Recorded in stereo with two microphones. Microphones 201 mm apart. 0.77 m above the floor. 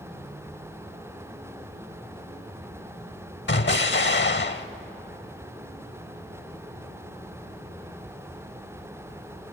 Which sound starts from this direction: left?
An explosion, at 3.5 s.